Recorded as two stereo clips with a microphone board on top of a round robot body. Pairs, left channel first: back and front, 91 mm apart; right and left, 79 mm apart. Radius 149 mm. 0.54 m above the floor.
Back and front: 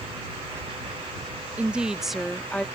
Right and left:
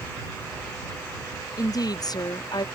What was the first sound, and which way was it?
A woman speaking, 70° right.